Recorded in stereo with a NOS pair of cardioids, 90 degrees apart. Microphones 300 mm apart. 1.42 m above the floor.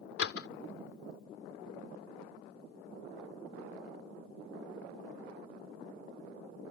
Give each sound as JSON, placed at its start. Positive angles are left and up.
{"t": 0.2, "sound": "a door slam", "azimuth_deg": 50}